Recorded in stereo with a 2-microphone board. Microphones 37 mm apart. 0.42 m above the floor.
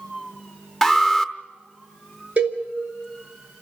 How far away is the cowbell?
About 3 m.